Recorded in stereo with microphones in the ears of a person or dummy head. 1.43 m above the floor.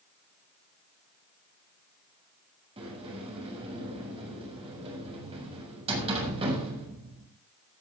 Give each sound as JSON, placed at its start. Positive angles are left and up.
{"t": 2.8, "sound": "a sliding door", "side_deg": -30, "distance_m": 6.5}